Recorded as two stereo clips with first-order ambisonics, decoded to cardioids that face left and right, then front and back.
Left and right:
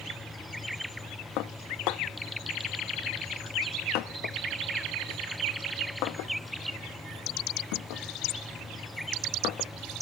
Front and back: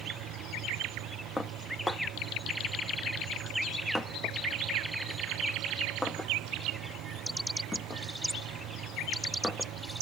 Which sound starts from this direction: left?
Dishes clattering, at 1.4 s.